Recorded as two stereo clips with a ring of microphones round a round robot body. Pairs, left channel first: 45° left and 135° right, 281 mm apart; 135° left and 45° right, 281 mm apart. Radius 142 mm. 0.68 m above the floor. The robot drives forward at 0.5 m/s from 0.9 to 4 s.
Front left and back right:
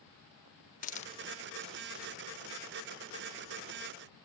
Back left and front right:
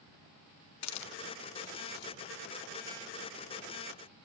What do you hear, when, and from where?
0.8 s a hiss: 105° left; by 2.1 s 140° left